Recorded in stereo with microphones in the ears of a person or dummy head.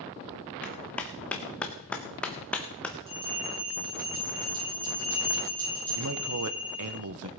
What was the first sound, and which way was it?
A clap, 10° left (ahead or behind).